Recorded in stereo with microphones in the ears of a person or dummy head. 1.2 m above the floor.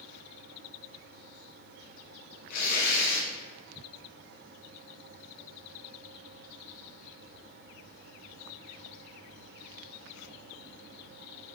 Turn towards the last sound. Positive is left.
turn(degrees=55)  # may be behind; listen again after turning